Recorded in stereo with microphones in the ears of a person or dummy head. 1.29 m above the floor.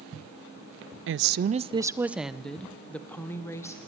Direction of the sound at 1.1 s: 60° right (ahead or behind).